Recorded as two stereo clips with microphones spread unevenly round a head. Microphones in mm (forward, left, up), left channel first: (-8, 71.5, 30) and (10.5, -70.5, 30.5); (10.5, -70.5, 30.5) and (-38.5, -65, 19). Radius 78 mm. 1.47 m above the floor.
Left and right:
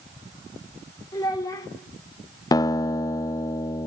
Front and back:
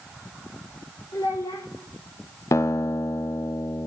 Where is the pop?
No pop in this recording.